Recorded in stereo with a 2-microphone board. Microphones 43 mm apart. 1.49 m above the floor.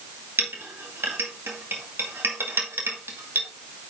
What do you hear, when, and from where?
0.4 s a clink: 70° right (ahead or behind), 2 m